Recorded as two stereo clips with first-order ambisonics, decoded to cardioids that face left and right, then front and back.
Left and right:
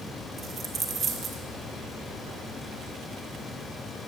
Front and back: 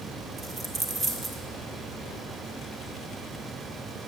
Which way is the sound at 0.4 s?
130° right.